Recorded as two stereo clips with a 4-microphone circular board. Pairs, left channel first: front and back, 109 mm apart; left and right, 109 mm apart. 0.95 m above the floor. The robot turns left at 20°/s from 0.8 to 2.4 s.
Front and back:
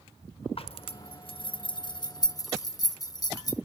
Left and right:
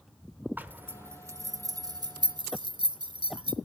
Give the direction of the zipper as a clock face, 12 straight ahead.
1 o'clock.